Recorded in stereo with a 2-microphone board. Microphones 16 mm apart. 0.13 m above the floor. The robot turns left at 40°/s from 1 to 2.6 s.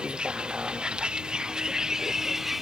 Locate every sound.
0.0 s a vehicle: 80° right; by 2.6 s 15° right (ahead or behind)